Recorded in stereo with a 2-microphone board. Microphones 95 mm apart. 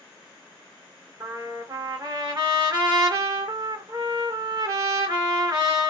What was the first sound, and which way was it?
A trumpet, 45° right (ahead or behind).